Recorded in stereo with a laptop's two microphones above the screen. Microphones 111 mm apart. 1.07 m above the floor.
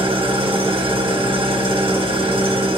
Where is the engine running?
60° right (ahead or behind), 2.5 m.